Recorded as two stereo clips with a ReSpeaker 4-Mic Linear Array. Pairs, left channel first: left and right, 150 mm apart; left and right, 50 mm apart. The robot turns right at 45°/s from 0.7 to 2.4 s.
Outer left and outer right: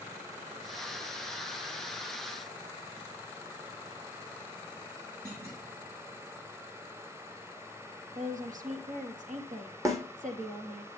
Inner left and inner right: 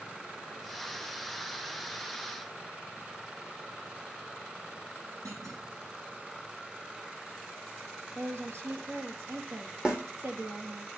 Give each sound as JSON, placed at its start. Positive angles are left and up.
{"t": 5.2, "sound": "a clunk", "side_deg": -80, "distance_m": 6.5}
{"t": 8.2, "sound": "a woman speaking", "side_deg": -60, "distance_m": 2.5}
{"t": 9.8, "sound": "a snare drum", "side_deg": -20, "distance_m": 2.5}